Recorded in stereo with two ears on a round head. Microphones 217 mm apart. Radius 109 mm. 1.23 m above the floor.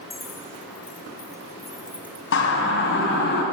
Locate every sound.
0.1 s keys jangling: 10° left (ahead or behind), 3.5 m; by 2.2 s 10° right (ahead or behind), 1.9 m
2.3 s a siren: 50° left (ahead or behind), 7 m; by 3.4 s 45° left (ahead or behind), 6 m